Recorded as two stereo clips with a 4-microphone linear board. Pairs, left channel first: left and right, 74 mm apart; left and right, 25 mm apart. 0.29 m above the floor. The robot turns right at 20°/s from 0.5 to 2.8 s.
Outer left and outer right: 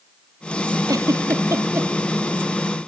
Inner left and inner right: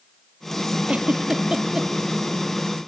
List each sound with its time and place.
0.9 s a giggle: 55° right (ahead or behind), 2 m; by 1.9 s 35° right (ahead or behind), 2 m